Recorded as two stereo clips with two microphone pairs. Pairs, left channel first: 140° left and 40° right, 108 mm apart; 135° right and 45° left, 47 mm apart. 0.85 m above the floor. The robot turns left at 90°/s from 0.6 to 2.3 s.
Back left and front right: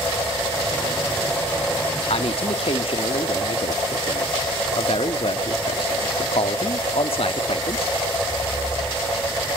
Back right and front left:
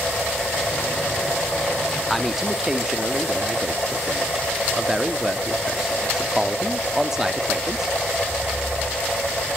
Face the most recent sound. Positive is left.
turn(degrees=125)